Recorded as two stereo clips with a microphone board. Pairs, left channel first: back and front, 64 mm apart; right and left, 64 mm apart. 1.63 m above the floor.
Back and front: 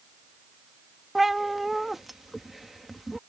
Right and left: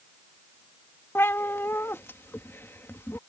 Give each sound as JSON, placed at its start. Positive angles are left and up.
{"t": 1.1, "sound": "a cat meowing", "azimuth_deg": -85}